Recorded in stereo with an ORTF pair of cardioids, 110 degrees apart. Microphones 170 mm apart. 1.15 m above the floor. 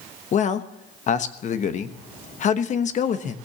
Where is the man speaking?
45° left, 1.1 m.